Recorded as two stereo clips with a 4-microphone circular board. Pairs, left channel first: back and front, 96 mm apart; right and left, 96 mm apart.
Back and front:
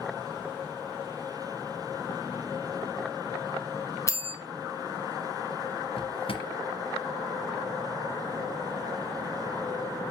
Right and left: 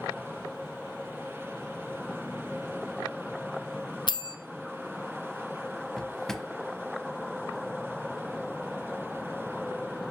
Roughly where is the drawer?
Behind.